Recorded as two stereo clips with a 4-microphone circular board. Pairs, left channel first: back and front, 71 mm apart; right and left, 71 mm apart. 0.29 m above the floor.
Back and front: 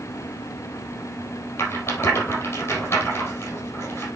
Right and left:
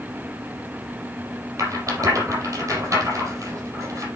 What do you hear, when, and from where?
1.6 s a rattle: 130° left, 4.5 m